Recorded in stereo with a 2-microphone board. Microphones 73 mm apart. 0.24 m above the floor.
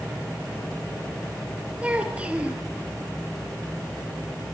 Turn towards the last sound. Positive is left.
turn(degrees=-15)  # may be behind; listen again after turning